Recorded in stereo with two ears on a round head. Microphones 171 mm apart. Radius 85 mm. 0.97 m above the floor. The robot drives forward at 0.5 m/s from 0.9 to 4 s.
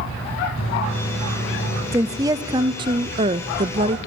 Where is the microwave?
85° left, 6 m; by 1.8 s 90° left, 6 m.